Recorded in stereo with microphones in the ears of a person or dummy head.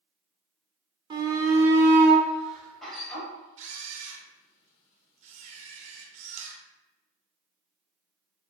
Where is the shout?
25° right (ahead or behind), 1.0 m; by 3.3 s centre (ahead or behind), 2 m.